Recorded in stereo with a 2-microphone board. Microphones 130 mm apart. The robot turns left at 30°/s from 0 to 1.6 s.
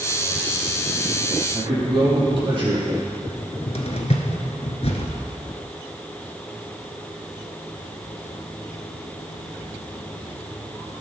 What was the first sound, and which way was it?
A man speaking, 40° right (ahead or behind).